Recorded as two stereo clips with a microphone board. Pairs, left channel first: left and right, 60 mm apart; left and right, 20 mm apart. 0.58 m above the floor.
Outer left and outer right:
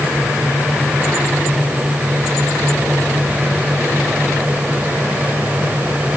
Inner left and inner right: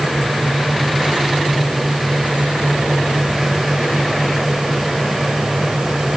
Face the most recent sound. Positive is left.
No sound to turn to.